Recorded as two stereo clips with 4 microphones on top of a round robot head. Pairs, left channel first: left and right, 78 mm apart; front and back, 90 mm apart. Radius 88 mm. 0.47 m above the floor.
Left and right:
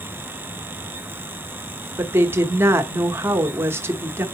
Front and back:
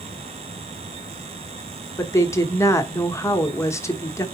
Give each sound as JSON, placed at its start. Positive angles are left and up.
{"t": 2.0, "sound": "a woman speaking", "azimuth_deg": -45, "distance_m": 1.1}